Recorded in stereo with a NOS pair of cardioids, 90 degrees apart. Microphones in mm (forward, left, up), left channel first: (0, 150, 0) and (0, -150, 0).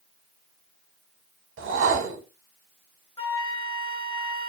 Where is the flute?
20° left, 0.6 m.